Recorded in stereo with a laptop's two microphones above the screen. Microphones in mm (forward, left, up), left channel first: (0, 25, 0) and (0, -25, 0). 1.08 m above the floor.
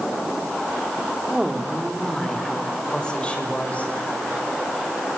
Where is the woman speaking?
15° right (ahead or behind), 3 m; by 3.9 s 30° left (ahead or behind), 5.5 m.